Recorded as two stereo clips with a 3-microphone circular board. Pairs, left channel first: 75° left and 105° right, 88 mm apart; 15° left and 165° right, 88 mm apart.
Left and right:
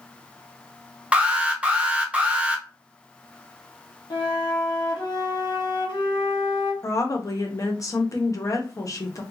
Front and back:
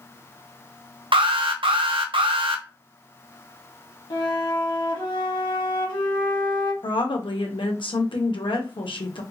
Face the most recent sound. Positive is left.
turn(degrees=25)